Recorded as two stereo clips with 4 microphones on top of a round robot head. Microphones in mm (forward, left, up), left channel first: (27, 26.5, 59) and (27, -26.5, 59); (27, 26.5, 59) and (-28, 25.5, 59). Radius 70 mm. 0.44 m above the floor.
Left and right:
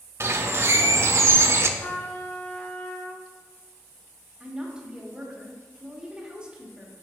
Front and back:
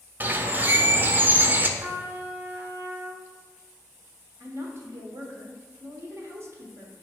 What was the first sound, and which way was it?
A bird, 125° right.